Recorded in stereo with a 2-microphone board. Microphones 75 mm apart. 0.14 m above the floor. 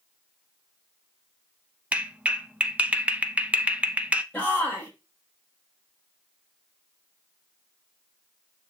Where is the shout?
20° left (ahead or behind), 7 m.